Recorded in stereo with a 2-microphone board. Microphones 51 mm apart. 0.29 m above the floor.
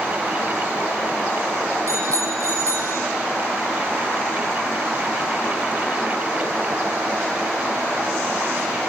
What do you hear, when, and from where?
1.9 s a bicycle bell: 65° right (ahead or behind), 8 m; by 3.0 s 70° right (ahead or behind), 8.5 m